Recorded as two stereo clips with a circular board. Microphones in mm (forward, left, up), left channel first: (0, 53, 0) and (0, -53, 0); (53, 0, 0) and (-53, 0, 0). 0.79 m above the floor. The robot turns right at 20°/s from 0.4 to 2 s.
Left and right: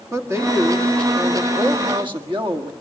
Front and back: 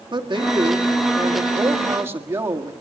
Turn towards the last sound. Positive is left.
turn(degrees=-120)